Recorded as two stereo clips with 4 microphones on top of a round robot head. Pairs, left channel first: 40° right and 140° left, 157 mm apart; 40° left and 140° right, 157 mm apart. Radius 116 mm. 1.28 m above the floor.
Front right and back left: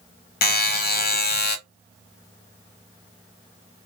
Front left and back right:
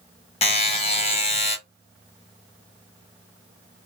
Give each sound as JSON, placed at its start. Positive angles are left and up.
{"t": 0.4, "sound": "a buzzer", "azimuth_deg": -15, "distance_m": 1.0}